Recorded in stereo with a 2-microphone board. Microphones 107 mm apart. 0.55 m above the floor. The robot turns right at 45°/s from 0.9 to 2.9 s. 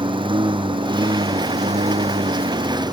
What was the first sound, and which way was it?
A lawn mower, 130° right.